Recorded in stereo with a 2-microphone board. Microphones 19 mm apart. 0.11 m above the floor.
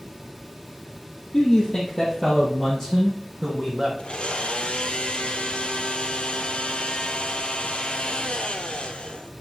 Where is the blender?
60° left (ahead or behind), 0.8 m.